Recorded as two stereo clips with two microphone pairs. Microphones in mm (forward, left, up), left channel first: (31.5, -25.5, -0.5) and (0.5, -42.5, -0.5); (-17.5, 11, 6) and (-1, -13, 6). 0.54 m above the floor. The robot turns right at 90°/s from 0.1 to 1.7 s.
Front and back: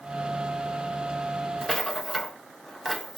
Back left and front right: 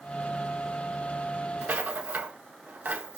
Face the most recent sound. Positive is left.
turn(degrees=-60)